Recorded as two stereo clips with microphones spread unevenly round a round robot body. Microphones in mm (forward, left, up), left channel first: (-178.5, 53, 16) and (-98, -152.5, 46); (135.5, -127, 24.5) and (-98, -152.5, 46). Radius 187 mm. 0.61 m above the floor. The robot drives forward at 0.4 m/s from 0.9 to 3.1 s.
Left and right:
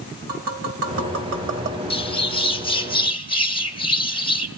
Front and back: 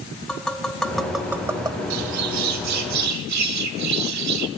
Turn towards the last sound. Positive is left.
turn(degrees=180)